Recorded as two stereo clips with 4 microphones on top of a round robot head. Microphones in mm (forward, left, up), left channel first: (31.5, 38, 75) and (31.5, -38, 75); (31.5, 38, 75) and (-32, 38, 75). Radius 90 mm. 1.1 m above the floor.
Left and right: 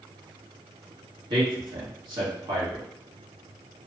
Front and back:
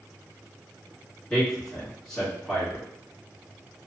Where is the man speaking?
80° right, 1.7 m.